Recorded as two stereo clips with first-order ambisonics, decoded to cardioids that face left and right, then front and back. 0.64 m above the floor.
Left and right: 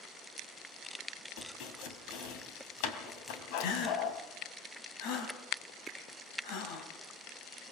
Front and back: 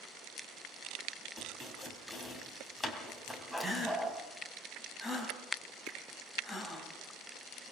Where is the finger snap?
175° right, 5.5 m.